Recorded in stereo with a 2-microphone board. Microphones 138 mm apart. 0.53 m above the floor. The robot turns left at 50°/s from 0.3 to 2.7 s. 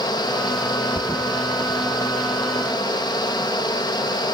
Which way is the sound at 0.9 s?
5° right (ahead or behind).